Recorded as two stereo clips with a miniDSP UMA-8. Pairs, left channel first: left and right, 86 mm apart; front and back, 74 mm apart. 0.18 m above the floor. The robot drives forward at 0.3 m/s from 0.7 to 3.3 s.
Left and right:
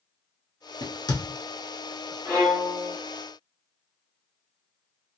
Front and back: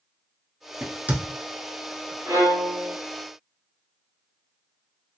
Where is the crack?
110° left, 0.6 m; by 1.2 s 120° left, 0.7 m.